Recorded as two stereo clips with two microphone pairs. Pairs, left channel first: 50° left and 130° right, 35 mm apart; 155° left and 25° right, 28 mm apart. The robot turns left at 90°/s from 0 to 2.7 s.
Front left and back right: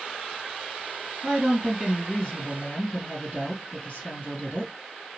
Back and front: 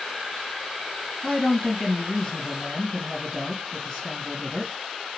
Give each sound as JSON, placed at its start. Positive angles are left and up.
{"t": 1.2, "sound": "a woman speaking", "azimuth_deg": -165, "distance_m": 2.0}